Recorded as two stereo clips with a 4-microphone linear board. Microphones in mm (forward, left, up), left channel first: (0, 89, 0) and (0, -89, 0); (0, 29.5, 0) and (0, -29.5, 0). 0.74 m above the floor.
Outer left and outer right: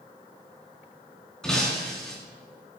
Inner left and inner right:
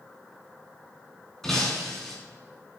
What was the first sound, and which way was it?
Breaking glass, 5° left (ahead or behind).